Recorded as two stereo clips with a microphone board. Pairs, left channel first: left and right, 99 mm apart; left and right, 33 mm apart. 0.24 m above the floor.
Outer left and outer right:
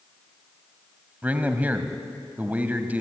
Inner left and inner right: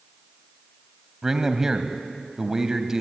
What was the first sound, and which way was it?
A man speaking, 15° right (ahead or behind).